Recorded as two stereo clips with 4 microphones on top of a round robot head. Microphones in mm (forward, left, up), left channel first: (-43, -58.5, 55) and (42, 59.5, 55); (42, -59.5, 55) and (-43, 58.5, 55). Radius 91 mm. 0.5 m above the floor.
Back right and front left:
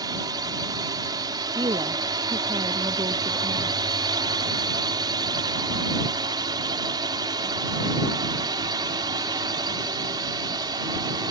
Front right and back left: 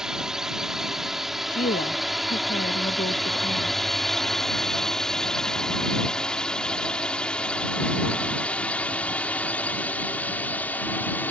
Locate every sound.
0.0 s a drone: 45° left; by 11.3 s 15° left
1.5 s a woman speaking: 10° right